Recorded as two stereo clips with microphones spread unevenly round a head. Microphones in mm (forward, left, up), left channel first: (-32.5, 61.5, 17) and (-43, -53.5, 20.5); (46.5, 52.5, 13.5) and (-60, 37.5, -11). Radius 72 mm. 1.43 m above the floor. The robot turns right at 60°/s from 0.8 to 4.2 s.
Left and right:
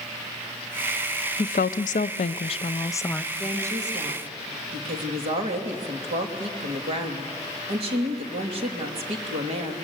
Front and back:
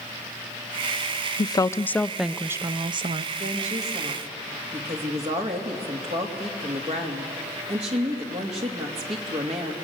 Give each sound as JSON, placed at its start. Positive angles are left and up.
{"t": 1.4, "sound": "a woman speaking", "azimuth_deg": 55, "distance_m": 0.6}
{"t": 3.3, "sound": "a woman speaking", "azimuth_deg": 180, "distance_m": 2.5}